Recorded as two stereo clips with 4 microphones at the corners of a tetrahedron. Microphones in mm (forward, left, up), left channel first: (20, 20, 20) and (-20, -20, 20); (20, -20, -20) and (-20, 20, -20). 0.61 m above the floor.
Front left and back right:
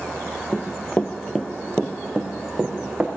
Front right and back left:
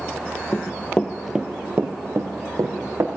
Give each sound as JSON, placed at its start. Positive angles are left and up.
{"t": 0.5, "sound": "running footsteps", "azimuth_deg": -20, "distance_m": 0.9}